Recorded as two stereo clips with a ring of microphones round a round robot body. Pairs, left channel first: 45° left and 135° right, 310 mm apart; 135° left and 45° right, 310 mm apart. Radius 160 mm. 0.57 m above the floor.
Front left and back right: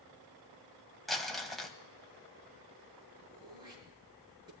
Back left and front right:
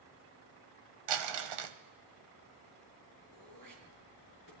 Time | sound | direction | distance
1.1 | crumpling | 45° right | 1.2 m
3.3 | throat clearing | 60° right | 5.5 m